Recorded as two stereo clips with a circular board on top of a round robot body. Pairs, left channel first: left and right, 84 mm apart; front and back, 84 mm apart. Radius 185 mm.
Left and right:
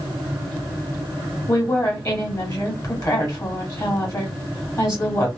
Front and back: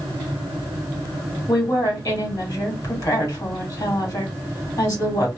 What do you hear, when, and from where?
1.5 s a woman speaking: 45° left, 1.7 m